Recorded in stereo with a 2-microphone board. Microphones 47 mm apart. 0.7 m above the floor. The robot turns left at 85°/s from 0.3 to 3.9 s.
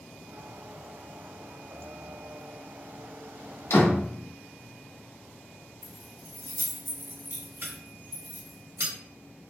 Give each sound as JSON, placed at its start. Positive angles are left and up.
{"t": 3.7, "sound": "a door slam", "side_deg": 70, "distance_m": 1.0}
{"t": 5.8, "sound": "keys jangling", "side_deg": -55, "distance_m": 1.1}